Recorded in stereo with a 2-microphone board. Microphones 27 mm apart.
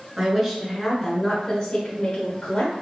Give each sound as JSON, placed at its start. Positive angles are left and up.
{"t": 0.2, "sound": "a woman speaking", "side_deg": -25, "distance_m": 1.7}